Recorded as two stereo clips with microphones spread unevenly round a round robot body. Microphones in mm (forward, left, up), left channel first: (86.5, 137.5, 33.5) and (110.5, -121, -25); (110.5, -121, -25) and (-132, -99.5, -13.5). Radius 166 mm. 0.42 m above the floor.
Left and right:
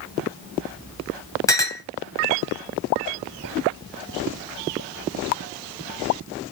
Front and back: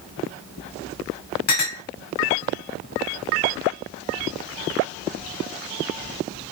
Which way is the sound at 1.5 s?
15° left.